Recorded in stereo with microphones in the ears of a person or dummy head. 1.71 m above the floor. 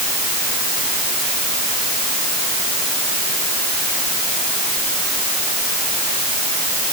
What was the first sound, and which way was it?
Only background noise.